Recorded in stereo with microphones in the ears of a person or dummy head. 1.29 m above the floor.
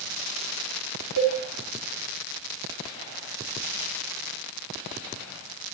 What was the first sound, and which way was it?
A cowbell, 60° right (ahead or behind).